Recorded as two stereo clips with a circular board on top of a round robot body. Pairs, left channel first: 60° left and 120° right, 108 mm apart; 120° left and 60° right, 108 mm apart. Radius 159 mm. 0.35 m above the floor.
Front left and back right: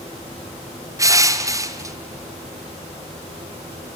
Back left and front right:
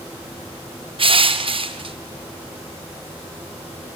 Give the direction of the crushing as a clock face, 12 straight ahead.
2 o'clock.